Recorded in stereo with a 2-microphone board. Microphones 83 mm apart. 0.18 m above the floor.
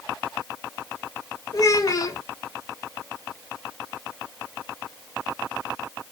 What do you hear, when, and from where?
1.5 s a child speaking: 40° left (ahead or behind), 1.0 m